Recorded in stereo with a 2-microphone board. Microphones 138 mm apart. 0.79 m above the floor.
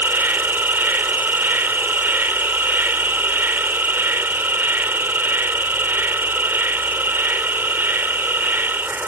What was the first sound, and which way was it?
An insect, 15° right (ahead or behind).